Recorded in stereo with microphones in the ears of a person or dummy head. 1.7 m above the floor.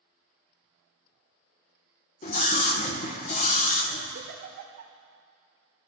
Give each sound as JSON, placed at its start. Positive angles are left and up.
{"t": 2.2, "sound": "a scream", "side_deg": 50, "distance_m": 1.4}
{"t": 4.2, "sound": "a giggle", "side_deg": -60, "distance_m": 1.5}